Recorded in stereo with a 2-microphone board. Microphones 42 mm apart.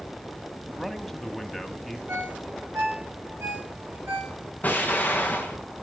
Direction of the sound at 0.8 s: 5° left (ahead or behind).